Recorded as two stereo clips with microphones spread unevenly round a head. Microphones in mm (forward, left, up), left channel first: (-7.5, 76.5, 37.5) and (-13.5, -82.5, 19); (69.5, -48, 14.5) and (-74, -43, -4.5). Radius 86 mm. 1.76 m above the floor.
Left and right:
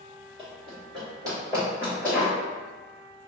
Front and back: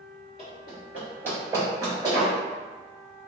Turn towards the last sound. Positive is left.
turn(degrees=175)